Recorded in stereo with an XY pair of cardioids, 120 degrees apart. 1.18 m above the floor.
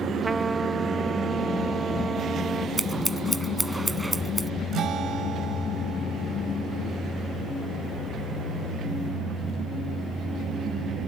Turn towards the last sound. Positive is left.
turn(degrees=-55)